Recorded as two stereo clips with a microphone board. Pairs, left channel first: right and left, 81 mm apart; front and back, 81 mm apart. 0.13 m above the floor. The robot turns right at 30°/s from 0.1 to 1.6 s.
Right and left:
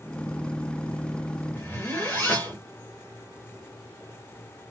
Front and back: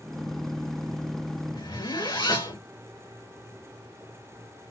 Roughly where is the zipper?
Ahead right.